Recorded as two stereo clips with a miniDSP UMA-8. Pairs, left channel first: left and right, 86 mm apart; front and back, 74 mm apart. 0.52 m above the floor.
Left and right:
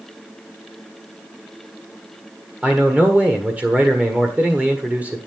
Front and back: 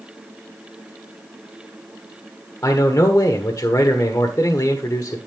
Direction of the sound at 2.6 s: 25° right.